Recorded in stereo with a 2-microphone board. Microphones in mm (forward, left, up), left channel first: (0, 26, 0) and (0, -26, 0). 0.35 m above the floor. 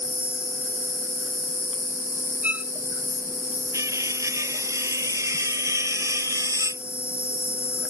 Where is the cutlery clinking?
85° right.